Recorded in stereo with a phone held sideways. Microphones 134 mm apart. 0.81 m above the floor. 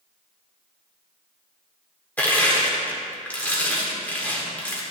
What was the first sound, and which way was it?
Crushing, 10° left (ahead or behind).